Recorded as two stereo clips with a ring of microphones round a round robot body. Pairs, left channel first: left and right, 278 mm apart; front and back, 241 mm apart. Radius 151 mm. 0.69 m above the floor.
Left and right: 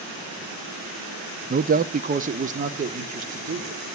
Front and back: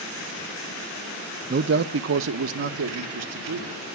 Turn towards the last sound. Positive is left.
turn(degrees=-155)